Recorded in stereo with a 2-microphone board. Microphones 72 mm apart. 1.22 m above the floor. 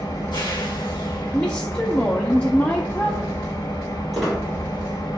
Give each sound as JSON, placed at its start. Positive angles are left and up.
{"t": 0.0, "sound": "an engine running", "side_deg": 80, "distance_m": 1.0}
{"t": 1.3, "sound": "a woman speaking", "side_deg": 20, "distance_m": 0.5}
{"t": 4.1, "sound": "a squeak", "side_deg": 0, "distance_m": 2.5}